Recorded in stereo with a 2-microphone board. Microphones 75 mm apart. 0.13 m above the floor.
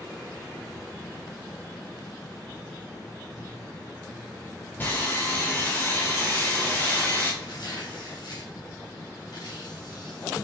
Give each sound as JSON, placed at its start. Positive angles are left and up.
{"t": 4.8, "sound": "sawing", "side_deg": 25, "distance_m": 3.5}
{"t": 7.4, "sound": "tearing paper", "side_deg": 60, "distance_m": 5.0}